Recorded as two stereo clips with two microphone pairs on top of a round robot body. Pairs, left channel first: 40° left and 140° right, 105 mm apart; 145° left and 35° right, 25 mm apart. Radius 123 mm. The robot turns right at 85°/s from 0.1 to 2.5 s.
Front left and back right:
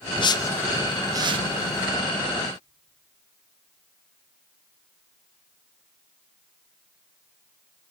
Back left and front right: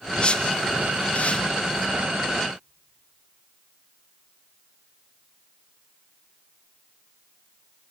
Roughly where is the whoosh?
Left.